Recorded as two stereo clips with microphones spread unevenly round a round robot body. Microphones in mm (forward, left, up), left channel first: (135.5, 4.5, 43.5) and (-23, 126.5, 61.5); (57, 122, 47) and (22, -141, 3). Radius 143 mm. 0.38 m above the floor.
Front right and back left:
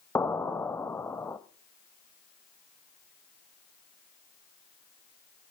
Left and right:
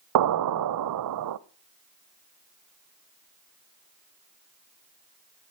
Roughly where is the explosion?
Behind right.